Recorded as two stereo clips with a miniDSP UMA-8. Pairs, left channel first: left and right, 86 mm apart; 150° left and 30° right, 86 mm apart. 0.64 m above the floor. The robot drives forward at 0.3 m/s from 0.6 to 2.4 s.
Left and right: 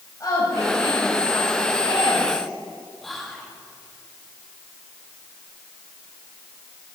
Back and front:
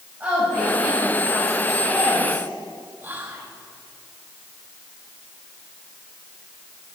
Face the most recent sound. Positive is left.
turn(degrees=10)